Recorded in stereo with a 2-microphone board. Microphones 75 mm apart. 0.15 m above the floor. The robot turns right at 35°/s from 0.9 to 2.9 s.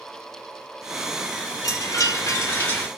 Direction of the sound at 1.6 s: 115° left.